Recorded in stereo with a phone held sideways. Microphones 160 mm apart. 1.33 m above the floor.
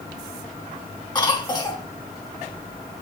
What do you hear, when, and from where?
1.1 s a cough: 25° left (ahead or behind), 3 m